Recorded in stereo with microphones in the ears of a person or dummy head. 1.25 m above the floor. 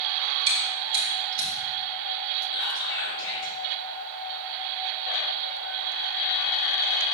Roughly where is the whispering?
Left.